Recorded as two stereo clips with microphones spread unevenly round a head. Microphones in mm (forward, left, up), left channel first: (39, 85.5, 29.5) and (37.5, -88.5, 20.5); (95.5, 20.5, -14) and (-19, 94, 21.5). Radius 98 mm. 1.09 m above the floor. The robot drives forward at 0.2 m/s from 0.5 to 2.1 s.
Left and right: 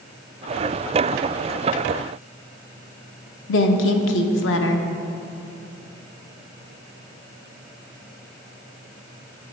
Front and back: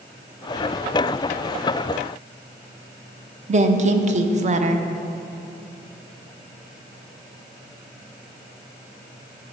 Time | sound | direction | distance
3.5 | a woman speaking | 105° left | 0.7 m